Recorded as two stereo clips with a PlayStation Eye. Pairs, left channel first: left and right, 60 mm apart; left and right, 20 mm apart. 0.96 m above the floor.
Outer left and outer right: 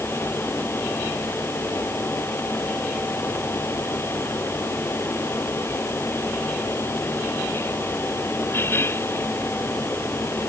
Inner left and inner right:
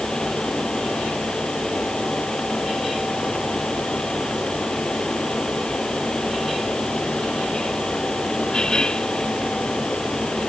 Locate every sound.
Only background noise.